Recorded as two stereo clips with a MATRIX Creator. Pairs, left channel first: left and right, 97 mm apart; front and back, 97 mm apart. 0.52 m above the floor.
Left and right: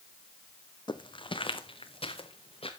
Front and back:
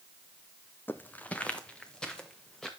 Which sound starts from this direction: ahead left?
Footsteps, at 0.9 s.